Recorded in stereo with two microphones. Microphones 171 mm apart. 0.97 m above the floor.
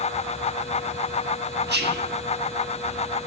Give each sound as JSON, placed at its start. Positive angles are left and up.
{"t": 1.7, "sound": "whispering", "side_deg": -80, "distance_m": 1.5}